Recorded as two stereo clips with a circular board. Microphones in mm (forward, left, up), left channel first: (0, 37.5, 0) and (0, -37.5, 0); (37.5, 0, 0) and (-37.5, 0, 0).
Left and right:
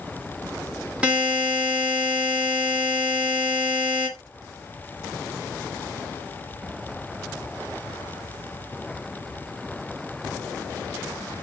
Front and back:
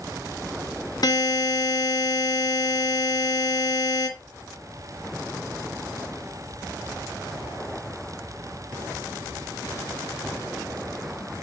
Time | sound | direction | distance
1.0 | a buzzer | 15° right | 1.8 m